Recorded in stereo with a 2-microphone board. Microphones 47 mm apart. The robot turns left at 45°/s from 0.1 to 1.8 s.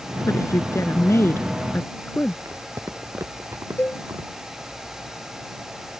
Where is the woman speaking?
105° left; by 2.4 s 35° left.